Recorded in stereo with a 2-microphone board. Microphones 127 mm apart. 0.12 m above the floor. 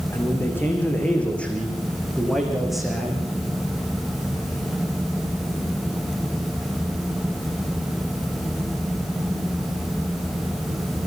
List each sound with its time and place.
0.1 s a man speaking: 20° left (ahead or behind), 6 m; by 3.3 s 5° right (ahead or behind), 7.5 m